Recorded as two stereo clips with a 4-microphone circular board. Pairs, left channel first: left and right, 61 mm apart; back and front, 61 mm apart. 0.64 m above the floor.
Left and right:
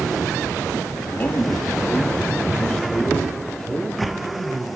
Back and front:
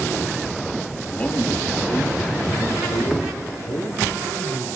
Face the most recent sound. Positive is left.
turn(degrees=175)